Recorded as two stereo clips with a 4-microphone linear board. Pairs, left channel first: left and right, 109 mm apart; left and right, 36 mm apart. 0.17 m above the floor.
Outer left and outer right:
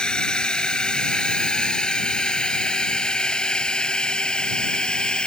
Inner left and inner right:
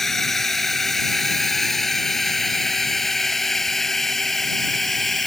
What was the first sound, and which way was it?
A drone, 5° left (ahead or behind).